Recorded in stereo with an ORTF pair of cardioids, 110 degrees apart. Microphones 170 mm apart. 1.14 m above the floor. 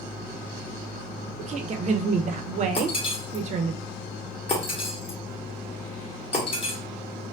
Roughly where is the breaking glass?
Ahead left.